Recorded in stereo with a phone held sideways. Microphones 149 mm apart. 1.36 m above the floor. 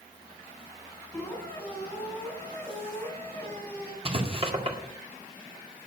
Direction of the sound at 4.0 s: 35° right (ahead or behind).